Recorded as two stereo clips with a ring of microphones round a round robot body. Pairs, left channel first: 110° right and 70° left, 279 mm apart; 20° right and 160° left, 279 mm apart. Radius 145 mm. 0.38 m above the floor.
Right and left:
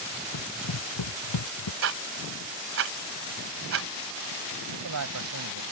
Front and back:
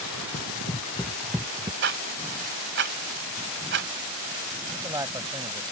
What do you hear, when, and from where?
0.3 s running footsteps: 85° right; by 1.7 s 130° right
1.8 s ticking: 110° left
4.7 s a man speaking: 80° left